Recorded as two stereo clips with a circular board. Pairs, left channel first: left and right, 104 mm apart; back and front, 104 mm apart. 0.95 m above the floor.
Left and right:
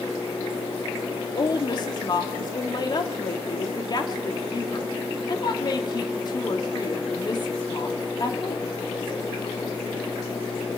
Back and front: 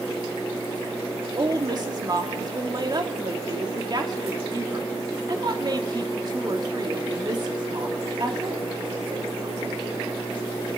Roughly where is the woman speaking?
Ahead left.